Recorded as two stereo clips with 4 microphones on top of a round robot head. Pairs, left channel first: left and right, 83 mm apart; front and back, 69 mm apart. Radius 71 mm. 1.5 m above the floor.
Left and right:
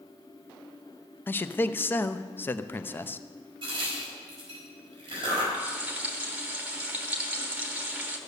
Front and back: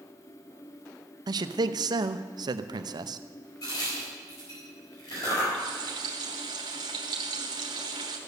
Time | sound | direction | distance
1.3 | a man speaking | 155° left | 0.7 m
3.6 | a crack | 45° right | 4.5 m
5.5 | frying | 160° right | 1.2 m